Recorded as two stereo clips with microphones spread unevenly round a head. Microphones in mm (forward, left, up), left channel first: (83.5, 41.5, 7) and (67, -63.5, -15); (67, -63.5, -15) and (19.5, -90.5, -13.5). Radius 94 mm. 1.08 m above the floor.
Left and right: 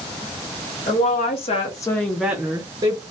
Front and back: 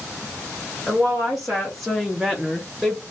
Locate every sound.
0.9 s a woman speaking: 120° left, 1.2 m; by 3.0 s 60° right, 1.0 m